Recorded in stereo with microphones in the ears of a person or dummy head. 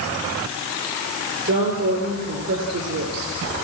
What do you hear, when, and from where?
1.4 s a woman speaking: 65° right (ahead or behind), 5.5 m